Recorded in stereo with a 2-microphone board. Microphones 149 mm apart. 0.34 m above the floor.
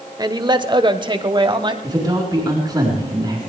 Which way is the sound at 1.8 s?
30° right (ahead or behind).